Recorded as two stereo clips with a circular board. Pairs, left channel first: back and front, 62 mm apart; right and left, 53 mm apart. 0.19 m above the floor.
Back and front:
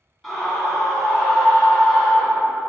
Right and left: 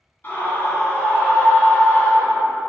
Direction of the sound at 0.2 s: 80° right.